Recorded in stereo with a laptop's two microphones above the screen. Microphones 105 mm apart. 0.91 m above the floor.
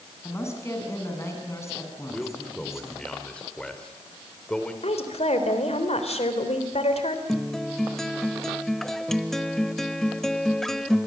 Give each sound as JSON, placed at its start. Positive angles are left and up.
{"t": 0.2, "sound": "a woman speaking", "side_deg": 25, "distance_m": 8.0}
{"t": 2.1, "sound": "a man speaking", "side_deg": 10, "distance_m": 3.0}
{"t": 4.8, "sound": "a woman speaking", "side_deg": 80, "distance_m": 3.5}
{"t": 7.3, "sound": "a guitar", "side_deg": 5, "distance_m": 0.9}